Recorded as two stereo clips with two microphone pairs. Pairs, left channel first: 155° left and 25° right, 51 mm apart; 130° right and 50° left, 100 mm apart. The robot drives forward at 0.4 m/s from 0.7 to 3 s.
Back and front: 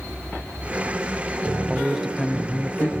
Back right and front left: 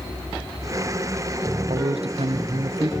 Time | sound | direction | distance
1.7 | a man speaking | 55° left | 0.6 m